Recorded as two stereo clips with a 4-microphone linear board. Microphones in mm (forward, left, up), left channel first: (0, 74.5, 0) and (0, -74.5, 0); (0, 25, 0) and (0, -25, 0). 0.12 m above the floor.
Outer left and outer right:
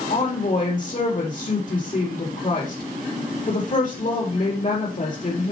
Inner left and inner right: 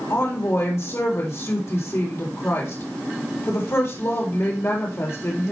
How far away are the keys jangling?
No keys jangling in this recording.